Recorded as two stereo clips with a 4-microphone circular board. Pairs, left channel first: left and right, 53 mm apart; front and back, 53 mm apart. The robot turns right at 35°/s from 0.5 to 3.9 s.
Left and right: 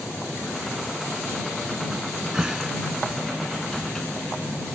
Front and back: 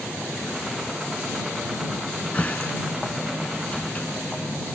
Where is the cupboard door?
45° right; by 4.1 s 25° left.